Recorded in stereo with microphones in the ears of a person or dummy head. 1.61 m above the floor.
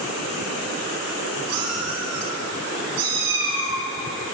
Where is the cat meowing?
80° right, 6.5 m.